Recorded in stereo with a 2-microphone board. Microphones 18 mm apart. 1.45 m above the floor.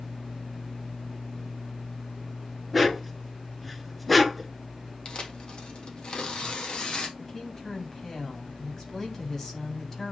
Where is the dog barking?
5° left (ahead or behind), 1.5 m.